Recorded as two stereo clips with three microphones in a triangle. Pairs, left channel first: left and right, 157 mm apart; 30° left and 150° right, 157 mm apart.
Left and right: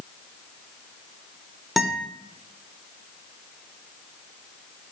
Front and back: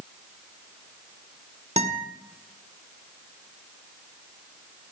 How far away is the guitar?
About 1.0 m.